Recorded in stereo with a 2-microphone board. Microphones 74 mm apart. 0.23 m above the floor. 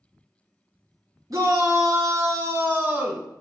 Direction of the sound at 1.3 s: 50° right (ahead or behind).